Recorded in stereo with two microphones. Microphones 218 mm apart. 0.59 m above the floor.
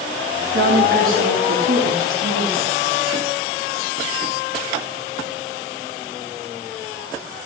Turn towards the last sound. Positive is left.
turn(degrees=-55)  # may be behind; listen again after turning